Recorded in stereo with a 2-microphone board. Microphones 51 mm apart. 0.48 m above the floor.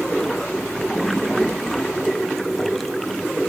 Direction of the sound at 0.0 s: 5° left (ahead or behind).